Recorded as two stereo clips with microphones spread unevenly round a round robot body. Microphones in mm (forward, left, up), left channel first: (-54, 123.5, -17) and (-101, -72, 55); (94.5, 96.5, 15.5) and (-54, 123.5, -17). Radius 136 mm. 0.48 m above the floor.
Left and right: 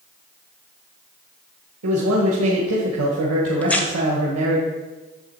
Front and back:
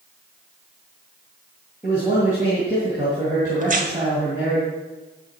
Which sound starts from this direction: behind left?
Tearing paper, at 3.6 s.